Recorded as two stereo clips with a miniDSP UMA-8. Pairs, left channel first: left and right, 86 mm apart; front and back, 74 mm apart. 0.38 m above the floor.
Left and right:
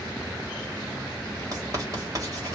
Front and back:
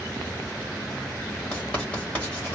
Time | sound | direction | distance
1.5 | writing | 70° right | 2 m